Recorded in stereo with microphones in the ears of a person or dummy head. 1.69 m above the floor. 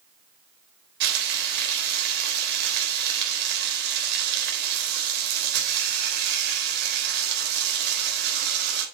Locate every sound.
1.0 s frying: 65° right (ahead or behind), 3.5 m